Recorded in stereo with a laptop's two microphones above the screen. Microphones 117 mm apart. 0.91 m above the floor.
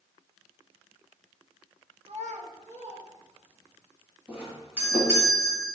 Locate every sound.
2.0 s a child speaking: 50° right (ahead or behind), 0.6 m; by 3.8 s 60° right (ahead or behind), 3 m
4.3 s a doorbell: 15° right (ahead or behind), 1.7 m